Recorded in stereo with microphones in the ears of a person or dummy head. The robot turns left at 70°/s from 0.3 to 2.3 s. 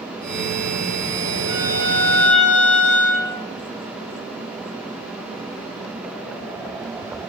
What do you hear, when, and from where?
1.5 s a violin: 95° left, 1.8 m; by 3.3 s 35° left, 1.8 m